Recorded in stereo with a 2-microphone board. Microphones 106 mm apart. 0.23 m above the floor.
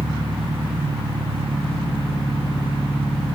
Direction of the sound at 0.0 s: 60° right (ahead or behind).